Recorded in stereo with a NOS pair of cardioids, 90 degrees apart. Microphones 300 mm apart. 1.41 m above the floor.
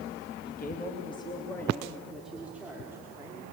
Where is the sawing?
No sawing in this recording.